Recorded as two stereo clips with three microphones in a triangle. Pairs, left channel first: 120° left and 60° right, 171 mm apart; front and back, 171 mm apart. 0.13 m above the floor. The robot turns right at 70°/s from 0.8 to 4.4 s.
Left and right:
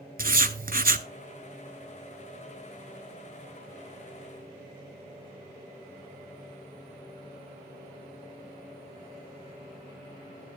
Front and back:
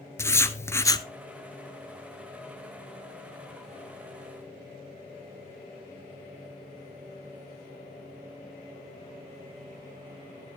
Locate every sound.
0.2 s writing: 70° right, 0.5 m; by 1.1 s 50° right, 0.5 m